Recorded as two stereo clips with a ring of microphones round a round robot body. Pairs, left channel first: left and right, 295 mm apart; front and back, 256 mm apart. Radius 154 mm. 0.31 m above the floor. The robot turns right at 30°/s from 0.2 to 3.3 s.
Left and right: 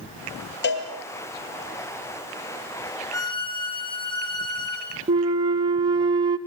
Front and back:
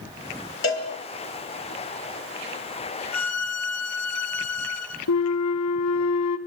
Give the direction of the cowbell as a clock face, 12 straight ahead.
11 o'clock.